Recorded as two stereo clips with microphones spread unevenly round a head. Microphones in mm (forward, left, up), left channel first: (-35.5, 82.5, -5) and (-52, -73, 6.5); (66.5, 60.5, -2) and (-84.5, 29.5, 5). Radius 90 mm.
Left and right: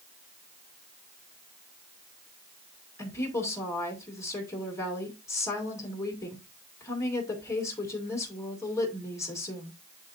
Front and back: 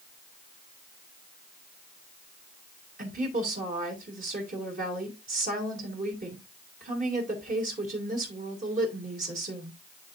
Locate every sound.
3.0 s a woman speaking: 155° left, 3 m